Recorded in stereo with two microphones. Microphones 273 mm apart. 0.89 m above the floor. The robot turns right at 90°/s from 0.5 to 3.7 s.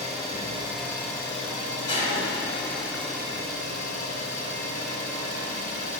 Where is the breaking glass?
15° left, 1.4 m; by 3.1 s 120° left, 1.4 m.